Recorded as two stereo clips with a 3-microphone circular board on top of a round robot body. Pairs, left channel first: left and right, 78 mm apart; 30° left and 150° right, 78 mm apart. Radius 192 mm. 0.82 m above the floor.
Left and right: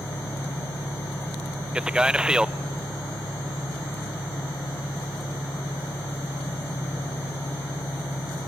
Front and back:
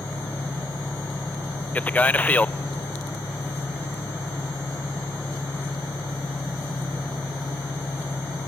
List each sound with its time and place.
0.0 s an engine running: 90° left, 1.7 m
1.8 s a man speaking: 20° right, 0.6 m